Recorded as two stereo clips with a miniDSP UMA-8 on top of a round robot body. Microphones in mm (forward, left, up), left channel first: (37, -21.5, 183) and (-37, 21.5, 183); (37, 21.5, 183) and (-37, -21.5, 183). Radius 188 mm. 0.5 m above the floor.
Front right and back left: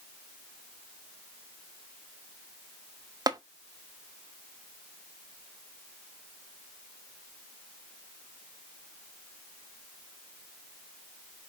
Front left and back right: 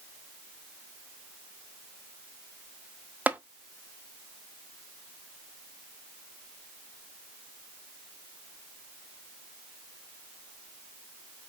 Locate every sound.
3.3 s tapping: 145° left, 1.3 m